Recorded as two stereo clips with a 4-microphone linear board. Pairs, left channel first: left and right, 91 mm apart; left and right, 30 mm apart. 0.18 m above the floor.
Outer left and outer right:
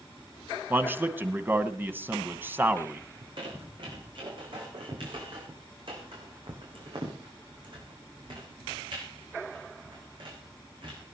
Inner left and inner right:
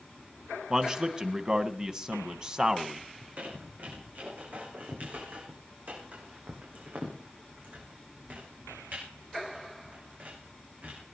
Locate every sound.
0.7 s a man speaking: 20° right (ahead or behind), 1.1 m
3.2 s a squeak: 60° right (ahead or behind), 6 m